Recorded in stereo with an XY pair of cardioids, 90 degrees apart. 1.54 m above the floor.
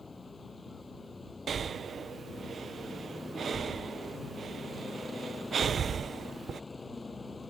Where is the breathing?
55° right.